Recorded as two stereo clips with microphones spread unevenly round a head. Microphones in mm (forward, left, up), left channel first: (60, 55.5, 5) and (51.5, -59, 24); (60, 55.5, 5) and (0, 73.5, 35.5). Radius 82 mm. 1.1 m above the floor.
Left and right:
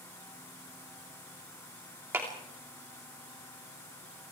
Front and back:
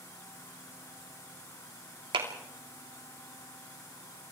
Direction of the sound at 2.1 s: 175° right.